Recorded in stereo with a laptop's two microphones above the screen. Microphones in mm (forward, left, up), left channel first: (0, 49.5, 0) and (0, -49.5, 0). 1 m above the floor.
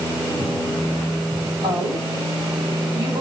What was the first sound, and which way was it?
A woman speaking, 65° right (ahead or behind).